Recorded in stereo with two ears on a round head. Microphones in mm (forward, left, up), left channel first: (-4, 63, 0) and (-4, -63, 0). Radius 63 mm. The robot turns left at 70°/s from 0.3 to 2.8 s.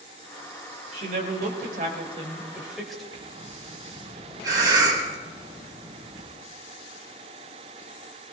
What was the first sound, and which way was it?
A woman speaking, 50° right.